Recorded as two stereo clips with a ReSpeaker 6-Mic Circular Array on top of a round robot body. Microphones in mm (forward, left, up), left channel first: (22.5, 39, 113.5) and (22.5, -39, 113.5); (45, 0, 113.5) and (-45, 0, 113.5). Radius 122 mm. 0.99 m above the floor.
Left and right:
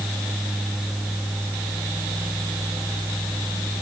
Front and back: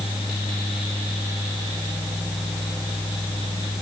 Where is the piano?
No piano in this recording.